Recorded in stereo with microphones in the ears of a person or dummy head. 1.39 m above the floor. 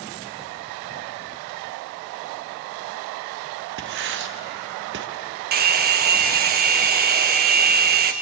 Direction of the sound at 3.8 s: 65° right (ahead or behind).